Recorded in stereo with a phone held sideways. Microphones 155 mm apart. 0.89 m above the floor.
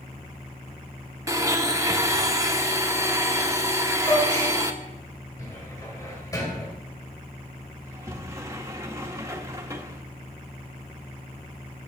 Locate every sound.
1.3 s a blender: 20° right (ahead or behind), 0.9 m
4.0 s a gasp: 20° left (ahead or behind), 6 m
5.4 s a cupboard door: 20° left (ahead or behind), 2.5 m
7.8 s a sliding door: 20° right (ahead or behind), 1.4 m